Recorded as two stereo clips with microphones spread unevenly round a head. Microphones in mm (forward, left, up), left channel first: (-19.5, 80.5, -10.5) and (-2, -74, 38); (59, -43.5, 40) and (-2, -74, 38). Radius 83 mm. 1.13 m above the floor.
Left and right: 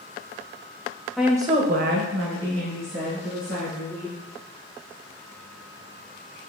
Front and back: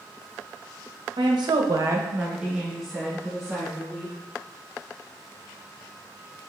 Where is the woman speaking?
175° right, 0.8 m; by 4.1 s 60° right, 2.5 m.